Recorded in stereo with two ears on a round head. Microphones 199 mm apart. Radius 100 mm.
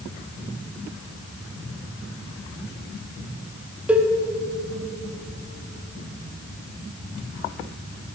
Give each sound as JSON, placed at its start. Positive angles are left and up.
{"t": 3.9, "sound": "a cowbell", "side_deg": -5, "distance_m": 0.5}